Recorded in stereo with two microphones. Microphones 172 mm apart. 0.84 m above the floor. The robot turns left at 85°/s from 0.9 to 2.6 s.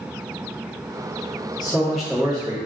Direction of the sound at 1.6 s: 35° left.